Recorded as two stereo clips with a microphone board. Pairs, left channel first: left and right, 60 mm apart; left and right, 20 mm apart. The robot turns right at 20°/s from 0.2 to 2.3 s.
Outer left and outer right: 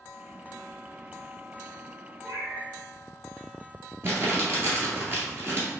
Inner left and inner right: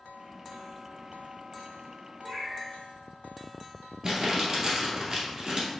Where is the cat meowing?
65° right (ahead or behind), 1.4 m.